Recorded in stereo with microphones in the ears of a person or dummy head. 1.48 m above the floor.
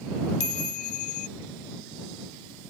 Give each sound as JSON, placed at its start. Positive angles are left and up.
{"t": 0.4, "sound": "a chime", "side_deg": 40}